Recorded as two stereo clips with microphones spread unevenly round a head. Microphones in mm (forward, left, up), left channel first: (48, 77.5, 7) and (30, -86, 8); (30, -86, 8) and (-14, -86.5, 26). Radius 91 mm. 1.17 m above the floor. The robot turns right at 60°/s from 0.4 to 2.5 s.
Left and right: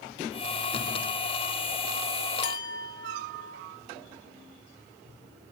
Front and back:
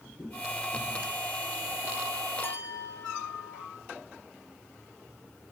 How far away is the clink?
About 1.5 m.